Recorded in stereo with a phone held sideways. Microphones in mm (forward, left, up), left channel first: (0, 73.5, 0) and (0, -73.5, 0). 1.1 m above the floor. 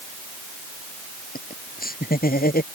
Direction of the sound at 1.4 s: 85° left.